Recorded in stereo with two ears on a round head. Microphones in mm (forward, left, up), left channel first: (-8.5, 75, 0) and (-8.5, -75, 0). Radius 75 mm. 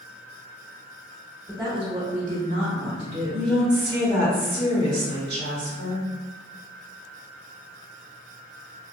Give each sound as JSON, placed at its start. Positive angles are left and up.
{"t": 1.5, "sound": "a woman speaking", "side_deg": -20, "distance_m": 0.9}
{"t": 3.3, "sound": "a woman speaking", "side_deg": -70, "distance_m": 1.8}